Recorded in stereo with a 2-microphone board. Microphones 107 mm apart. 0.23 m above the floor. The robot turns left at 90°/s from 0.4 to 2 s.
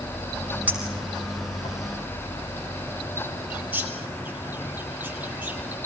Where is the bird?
15° right (ahead or behind), 2.5 m.